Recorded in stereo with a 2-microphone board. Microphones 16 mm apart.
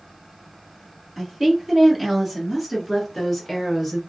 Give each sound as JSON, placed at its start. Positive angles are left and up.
{"t": 1.2, "sound": "a woman speaking", "side_deg": -25, "distance_m": 1.7}